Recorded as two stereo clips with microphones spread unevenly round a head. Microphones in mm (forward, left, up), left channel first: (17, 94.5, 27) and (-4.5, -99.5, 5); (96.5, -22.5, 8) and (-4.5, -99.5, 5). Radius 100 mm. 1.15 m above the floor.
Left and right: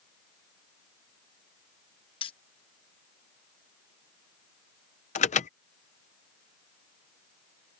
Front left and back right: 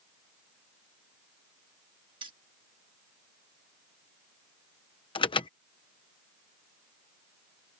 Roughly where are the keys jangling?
Behind left.